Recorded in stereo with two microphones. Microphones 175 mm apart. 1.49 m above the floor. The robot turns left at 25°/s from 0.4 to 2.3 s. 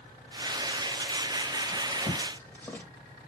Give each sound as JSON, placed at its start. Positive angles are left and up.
{"t": 1.7, "sound": "a drawer", "side_deg": 5, "distance_m": 1.3}